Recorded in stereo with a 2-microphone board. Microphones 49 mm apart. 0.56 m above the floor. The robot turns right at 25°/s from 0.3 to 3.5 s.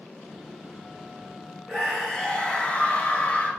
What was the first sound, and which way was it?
A scream, 10° left.